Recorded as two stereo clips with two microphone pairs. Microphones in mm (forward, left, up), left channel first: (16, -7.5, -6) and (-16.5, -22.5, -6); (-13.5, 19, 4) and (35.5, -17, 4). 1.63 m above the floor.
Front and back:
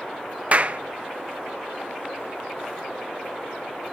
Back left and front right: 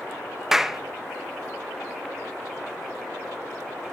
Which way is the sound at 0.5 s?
120° right.